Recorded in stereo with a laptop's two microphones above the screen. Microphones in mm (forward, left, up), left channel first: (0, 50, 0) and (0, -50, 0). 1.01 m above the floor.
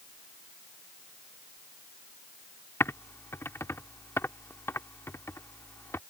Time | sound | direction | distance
2.8 | typing on a keyboard | 25° left (ahead or behind) | ?